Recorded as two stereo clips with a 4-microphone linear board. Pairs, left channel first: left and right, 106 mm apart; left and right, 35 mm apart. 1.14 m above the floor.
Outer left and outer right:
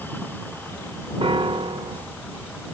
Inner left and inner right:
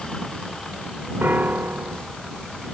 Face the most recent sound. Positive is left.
turn(degrees=-60)  # may be behind; listen again after turning